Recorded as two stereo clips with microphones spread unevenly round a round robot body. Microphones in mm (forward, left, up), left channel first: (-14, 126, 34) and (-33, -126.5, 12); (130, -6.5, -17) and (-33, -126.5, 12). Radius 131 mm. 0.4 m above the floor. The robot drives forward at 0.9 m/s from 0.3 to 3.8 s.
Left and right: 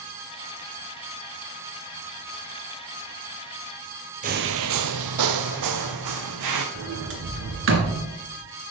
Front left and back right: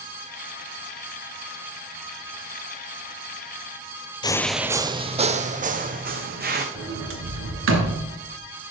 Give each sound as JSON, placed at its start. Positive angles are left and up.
{"t": 4.2, "sound": "footsteps", "azimuth_deg": -35, "distance_m": 0.5}
{"t": 6.8, "sound": "a sliding door", "azimuth_deg": -130, "distance_m": 2.5}